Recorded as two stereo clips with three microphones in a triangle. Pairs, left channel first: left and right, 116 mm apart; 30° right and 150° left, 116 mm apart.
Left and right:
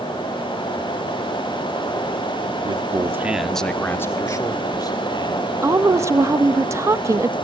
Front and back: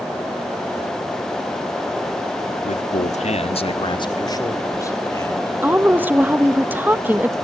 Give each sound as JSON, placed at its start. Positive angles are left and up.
{"t": 2.6, "sound": "a man speaking", "azimuth_deg": -45, "distance_m": 1.3}
{"t": 5.6, "sound": "a woman speaking", "azimuth_deg": -140, "distance_m": 1.2}